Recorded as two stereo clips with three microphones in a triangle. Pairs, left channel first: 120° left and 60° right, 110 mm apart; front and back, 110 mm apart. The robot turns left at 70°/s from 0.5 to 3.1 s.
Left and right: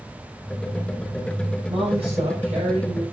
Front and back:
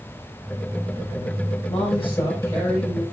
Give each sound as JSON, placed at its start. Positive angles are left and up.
{"t": 1.7, "sound": "a woman speaking", "azimuth_deg": -10, "distance_m": 7.5}